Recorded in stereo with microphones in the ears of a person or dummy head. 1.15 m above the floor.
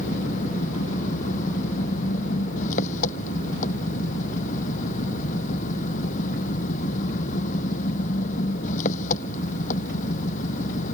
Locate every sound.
0.0 s an engine running: 50° left (ahead or behind)